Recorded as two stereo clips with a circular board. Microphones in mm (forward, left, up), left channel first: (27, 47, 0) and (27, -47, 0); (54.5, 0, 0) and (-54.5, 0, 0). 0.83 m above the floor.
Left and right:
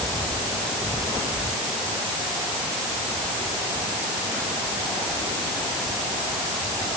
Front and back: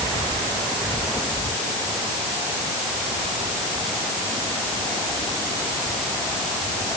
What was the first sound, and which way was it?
Only background noise.